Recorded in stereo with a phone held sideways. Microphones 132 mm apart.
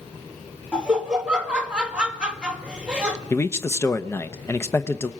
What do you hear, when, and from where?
0.7 s laughter: 10° right (ahead or behind), 1.7 m
3.3 s a man speaking: 20° left (ahead or behind), 0.8 m